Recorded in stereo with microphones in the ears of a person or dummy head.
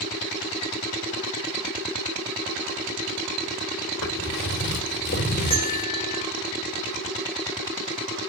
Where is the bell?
25° left (ahead or behind), 1.2 m.